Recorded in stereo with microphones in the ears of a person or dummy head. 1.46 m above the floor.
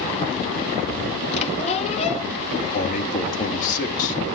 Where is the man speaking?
45° left (ahead or behind), 3 m.